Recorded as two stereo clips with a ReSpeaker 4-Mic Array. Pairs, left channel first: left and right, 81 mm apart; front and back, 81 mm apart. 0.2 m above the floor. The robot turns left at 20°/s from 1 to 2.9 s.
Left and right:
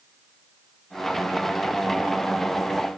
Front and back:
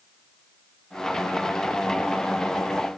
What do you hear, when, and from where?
Only background noise.